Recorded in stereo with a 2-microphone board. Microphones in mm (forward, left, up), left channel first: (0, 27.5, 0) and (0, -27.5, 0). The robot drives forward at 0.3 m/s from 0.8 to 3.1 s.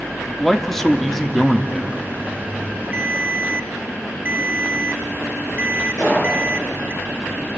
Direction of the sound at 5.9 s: 65° left (ahead or behind).